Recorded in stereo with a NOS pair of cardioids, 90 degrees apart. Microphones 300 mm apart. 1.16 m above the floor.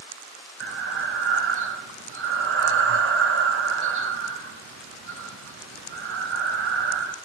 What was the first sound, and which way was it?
Breathing, 45° right.